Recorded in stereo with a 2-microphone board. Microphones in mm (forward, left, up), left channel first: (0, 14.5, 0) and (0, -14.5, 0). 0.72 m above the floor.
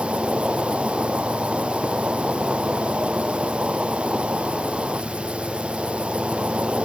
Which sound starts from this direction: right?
An insect, at 0.0 s.